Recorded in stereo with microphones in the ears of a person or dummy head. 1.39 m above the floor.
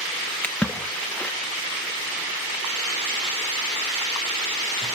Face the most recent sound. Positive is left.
turn(degrees=5)  # may be behind; listen again after turning